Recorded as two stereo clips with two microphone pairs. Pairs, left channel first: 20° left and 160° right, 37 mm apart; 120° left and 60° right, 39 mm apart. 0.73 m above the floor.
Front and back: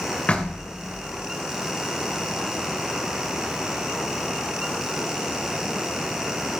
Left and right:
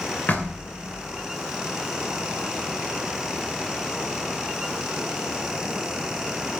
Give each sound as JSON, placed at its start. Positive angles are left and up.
{"t": 0.3, "sound": "knocking", "azimuth_deg": 75, "distance_m": 2.5}